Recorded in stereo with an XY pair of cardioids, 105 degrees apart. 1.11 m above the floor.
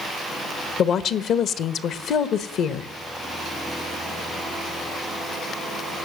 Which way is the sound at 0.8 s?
65° left.